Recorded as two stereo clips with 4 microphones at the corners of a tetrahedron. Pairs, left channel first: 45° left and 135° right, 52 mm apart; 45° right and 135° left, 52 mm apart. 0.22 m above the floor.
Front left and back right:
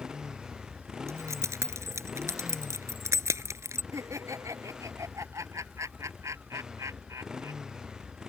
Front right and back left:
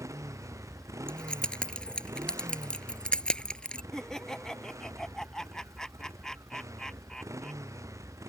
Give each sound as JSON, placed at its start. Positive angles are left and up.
{"t": 0.0, "sound": "a motorcycle", "azimuth_deg": 145}
{"t": 1.1, "sound": "keys jangling", "azimuth_deg": -115}
{"t": 3.9, "sound": "laughter", "azimuth_deg": -125}